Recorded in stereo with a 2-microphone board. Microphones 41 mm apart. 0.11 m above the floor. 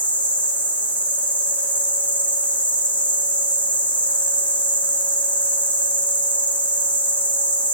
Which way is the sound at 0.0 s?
45° left (ahead or behind).